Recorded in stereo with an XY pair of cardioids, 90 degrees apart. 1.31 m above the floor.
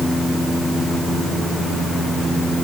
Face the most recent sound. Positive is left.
No sound to turn to.